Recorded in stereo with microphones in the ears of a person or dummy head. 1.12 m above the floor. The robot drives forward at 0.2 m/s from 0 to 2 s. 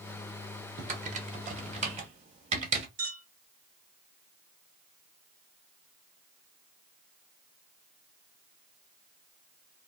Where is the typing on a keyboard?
45° right (ahead or behind), 0.8 m; by 2.9 s 35° right (ahead or behind), 1.0 m.